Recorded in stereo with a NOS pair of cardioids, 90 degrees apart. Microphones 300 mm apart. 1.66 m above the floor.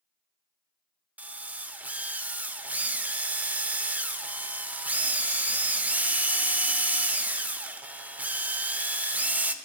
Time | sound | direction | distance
1.2 | a drill | 5° right | 0.5 m